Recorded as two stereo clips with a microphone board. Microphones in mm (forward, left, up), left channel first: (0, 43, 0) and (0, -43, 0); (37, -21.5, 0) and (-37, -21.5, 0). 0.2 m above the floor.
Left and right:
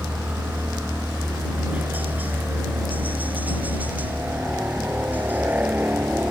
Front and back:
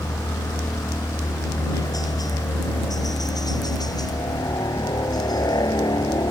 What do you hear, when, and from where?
0.0 s a helicopter: 20° right